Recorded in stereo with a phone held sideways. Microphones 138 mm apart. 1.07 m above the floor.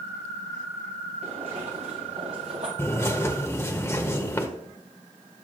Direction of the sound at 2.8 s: 20° left (ahead or behind).